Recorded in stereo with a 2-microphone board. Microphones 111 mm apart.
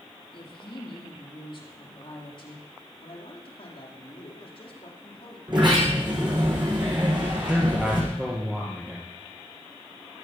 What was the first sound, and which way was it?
A woman speaking, 45° left (ahead or behind).